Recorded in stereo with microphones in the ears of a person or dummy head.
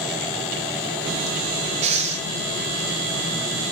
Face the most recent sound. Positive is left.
turn(degrees=-40)  # may be behind; listen again after turning